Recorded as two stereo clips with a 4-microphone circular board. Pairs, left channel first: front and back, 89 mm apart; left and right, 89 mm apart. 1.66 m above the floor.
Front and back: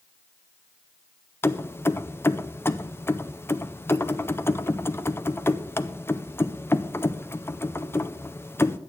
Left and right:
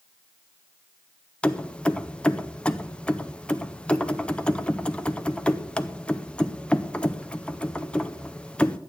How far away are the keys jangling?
About 0.6 m.